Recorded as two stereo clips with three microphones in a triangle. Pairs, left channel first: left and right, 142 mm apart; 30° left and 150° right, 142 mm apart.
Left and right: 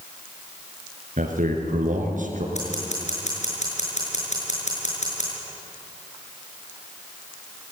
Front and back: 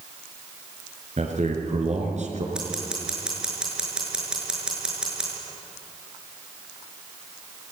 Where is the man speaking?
115° right, 5.5 m.